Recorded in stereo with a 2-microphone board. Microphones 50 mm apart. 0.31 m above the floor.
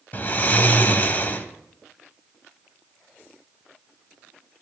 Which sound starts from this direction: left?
Snoring, at 0.1 s.